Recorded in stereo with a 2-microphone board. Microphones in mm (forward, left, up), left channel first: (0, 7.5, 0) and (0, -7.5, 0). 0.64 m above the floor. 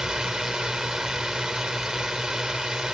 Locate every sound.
0.0 s a drone: 60° right (ahead or behind)